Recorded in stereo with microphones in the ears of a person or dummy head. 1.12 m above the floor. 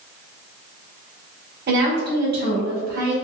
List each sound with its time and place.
1.7 s a woman speaking: 50° right (ahead or behind), 0.9 m